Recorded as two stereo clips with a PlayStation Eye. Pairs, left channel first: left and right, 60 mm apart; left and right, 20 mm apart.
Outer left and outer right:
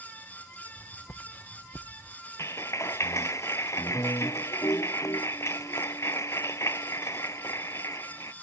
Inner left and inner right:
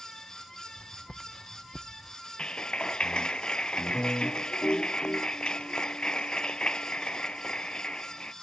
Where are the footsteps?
45° left (ahead or behind); by 2.2 s 35° left (ahead or behind).